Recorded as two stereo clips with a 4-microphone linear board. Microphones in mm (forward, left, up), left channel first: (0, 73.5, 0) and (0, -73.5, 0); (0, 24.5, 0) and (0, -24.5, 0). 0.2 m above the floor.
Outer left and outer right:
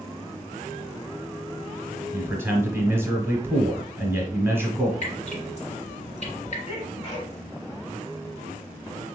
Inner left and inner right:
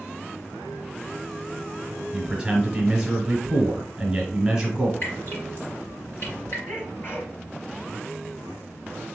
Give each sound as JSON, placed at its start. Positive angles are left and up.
{"t": 2.1, "sound": "a man speaking", "side_deg": -15, "distance_m": 1.4}
{"t": 5.0, "sound": "dripping", "side_deg": 50, "distance_m": 3.0}
{"t": 6.7, "sound": "a sneeze", "side_deg": 40, "distance_m": 3.0}